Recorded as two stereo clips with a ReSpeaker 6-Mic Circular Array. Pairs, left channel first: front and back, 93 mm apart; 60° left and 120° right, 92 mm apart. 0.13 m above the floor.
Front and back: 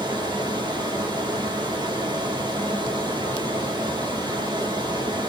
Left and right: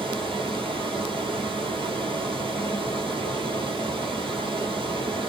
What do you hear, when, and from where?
0.0 s running water: 140° right, 2.5 m